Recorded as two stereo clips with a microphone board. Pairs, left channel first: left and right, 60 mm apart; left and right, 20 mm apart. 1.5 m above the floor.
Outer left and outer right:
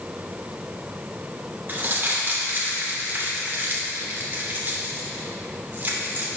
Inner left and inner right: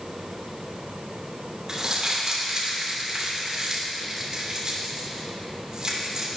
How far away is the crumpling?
About 2.5 m.